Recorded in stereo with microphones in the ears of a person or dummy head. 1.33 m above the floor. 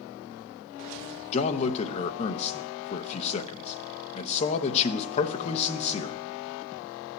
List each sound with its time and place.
1.3 s a man speaking: 40° left (ahead or behind), 0.8 m